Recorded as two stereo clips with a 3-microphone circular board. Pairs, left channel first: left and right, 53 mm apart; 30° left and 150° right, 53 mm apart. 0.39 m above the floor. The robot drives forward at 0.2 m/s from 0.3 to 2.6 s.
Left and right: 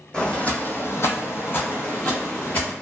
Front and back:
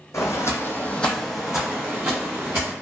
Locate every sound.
0.1 s footsteps: 20° left, 0.8 m; by 2.7 s 150° left, 1.9 m